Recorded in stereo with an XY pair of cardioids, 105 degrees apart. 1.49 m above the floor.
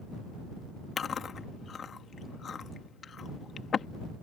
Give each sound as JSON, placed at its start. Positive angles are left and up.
{"t": 1.0, "sound": "chewing", "azimuth_deg": 45}